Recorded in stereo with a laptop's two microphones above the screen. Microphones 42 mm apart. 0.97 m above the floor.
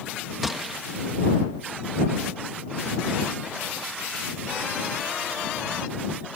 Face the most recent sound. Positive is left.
turn(degrees=-5)  # may be behind; listen again after turning